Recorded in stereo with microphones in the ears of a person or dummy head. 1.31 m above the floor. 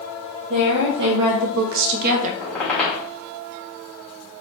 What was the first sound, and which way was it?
A woman speaking, 45° right (ahead or behind).